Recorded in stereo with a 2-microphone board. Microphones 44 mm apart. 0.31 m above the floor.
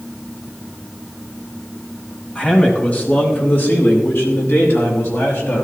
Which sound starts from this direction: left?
A man speaking, at 2.4 s.